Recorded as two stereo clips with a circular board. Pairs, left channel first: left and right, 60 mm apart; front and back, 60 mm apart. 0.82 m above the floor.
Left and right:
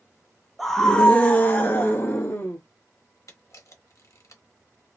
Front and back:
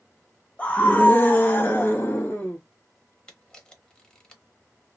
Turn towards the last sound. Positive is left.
turn(degrees=75)